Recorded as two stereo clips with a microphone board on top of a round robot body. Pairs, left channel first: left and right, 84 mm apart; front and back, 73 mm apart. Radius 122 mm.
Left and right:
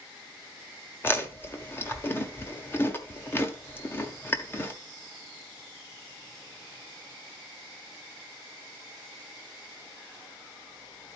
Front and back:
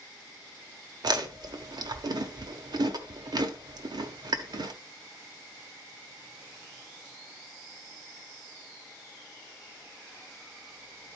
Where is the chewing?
155° left, 1.2 m.